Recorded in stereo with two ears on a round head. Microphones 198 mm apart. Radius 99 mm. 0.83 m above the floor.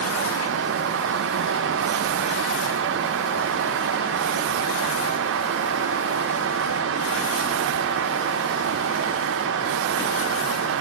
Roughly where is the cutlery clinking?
I don't hear cutlery clinking.